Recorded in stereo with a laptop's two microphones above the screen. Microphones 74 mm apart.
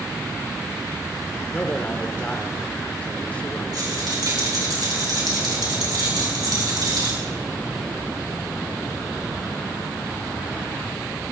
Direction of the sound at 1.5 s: 20° left (ahead or behind).